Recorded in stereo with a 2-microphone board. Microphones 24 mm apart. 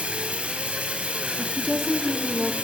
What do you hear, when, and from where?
0.0 s running water: 70° right (ahead or behind), 1.7 m
1.4 s a woman speaking: 15° left (ahead or behind), 1.0 m